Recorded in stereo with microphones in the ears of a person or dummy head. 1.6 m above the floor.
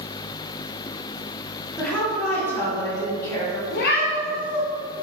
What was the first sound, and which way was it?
A woman speaking, 5° left (ahead or behind).